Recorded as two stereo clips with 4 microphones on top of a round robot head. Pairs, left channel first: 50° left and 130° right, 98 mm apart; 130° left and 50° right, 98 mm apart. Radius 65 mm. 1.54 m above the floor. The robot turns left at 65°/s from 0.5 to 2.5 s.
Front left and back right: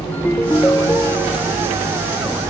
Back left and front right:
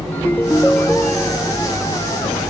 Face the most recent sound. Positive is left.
turn(degrees=-35)